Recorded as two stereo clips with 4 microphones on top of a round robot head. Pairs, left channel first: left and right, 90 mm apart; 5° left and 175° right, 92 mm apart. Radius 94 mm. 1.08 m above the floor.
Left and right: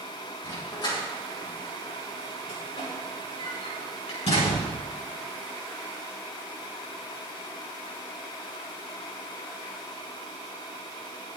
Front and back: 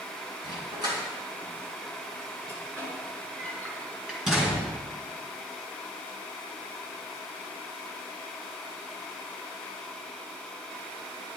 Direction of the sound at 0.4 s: 150° left.